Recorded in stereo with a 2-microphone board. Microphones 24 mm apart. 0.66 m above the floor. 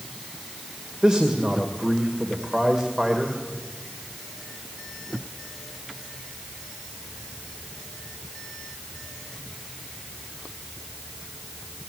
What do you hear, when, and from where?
1.0 s a man speaking: 30° right (ahead or behind), 2.5 m